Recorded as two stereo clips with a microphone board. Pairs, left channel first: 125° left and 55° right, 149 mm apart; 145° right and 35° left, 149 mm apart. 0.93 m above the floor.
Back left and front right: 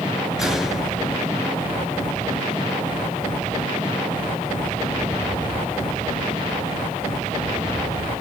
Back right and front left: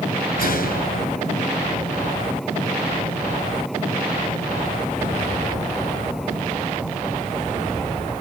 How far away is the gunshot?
About 3.5 m.